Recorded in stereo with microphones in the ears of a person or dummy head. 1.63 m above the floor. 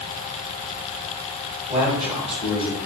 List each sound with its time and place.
1.7 s a man speaking: 5° right (ahead or behind), 1.8 m